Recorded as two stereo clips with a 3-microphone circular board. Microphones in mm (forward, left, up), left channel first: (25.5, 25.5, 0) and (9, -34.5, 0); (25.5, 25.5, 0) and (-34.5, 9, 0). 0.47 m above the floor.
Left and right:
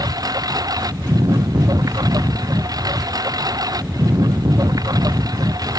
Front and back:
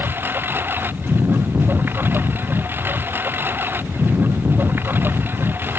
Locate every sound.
0.0 s a lawn mower: 110° right